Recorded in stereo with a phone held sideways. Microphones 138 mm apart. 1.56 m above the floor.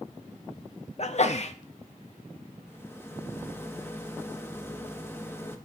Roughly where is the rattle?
Centre.